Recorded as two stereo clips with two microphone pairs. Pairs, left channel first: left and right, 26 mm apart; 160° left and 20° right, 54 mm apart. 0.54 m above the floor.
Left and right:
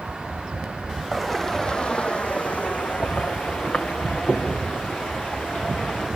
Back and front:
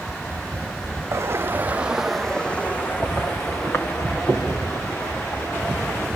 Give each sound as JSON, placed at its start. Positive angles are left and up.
{"t": 1.1, "sound": "footsteps", "azimuth_deg": 5, "distance_m": 1.1}